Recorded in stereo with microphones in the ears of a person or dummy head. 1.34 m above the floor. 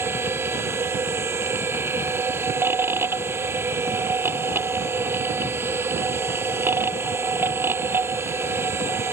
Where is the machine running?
10° right (ahead or behind).